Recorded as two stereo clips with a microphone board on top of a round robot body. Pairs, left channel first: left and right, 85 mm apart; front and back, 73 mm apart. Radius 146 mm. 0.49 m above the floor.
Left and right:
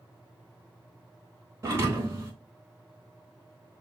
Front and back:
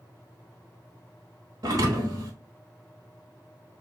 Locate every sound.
1.6 s a thud: 150° right, 0.6 m